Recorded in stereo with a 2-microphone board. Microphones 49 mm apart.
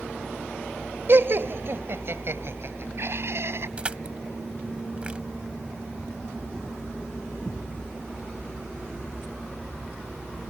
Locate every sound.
1.1 s laughter: 55° right (ahead or behind); by 3.7 s 65° right (ahead or behind)
3.8 s crushing: 25° right (ahead or behind)